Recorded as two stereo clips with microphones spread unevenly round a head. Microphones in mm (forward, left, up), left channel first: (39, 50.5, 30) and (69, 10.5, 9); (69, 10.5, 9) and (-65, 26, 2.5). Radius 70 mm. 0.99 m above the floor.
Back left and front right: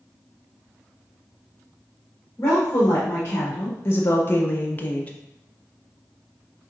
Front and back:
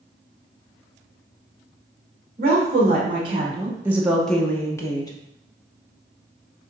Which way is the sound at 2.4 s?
155° right.